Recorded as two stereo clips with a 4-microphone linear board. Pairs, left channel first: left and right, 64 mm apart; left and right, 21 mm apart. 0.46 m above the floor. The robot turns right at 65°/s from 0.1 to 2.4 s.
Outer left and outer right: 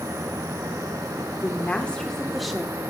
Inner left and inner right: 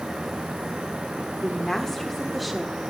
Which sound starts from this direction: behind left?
A woman speaking, at 1.4 s.